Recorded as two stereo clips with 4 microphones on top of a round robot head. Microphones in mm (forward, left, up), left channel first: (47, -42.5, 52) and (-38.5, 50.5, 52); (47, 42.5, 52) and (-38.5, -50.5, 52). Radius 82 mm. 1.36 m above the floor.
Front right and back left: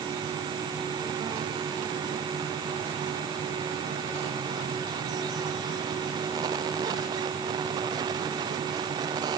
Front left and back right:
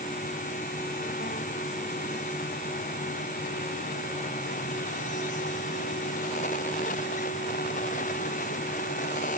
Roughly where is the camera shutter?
I don't hear a camera shutter.